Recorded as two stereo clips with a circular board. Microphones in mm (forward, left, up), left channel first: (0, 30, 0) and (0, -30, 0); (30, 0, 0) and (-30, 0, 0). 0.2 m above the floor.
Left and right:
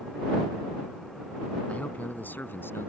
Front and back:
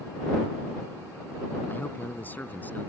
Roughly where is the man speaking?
Ahead left.